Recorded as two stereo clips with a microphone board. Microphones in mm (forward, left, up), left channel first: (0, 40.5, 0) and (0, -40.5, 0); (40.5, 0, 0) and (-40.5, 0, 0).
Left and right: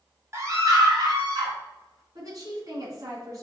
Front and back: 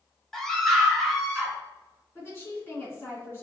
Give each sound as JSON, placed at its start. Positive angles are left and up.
{"t": 0.3, "sound": "a scream", "azimuth_deg": -80, "distance_m": 1.1}
{"t": 2.1, "sound": "a woman speaking", "azimuth_deg": -55, "distance_m": 2.0}